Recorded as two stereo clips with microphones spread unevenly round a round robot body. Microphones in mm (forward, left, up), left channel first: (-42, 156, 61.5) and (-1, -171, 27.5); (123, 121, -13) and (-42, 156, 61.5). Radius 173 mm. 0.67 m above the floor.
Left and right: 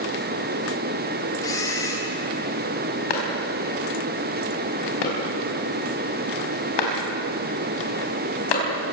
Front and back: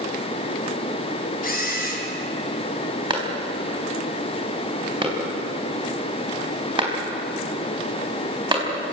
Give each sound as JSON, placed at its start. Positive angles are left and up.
{"t": 1.4, "sound": "a camera shutter", "azimuth_deg": 15, "distance_m": 5.0}
{"t": 3.1, "sound": "a clap", "azimuth_deg": 105, "distance_m": 5.0}